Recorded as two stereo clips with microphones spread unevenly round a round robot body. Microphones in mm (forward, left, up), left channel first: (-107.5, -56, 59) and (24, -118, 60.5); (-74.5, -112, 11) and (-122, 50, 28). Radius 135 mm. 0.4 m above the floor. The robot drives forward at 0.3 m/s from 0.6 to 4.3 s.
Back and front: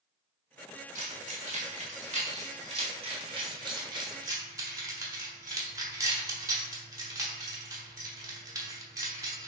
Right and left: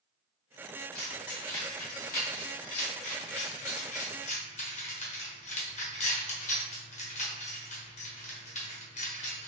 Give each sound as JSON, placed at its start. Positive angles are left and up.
{"t": 0.9, "sound": "keys jangling", "azimuth_deg": -40, "distance_m": 1.6}